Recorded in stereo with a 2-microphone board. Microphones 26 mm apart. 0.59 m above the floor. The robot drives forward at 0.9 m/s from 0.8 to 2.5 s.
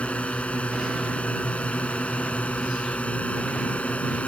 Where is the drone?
60° left (ahead or behind).